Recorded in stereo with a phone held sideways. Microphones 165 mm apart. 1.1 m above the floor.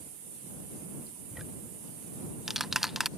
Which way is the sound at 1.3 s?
Centre (ahead or behind).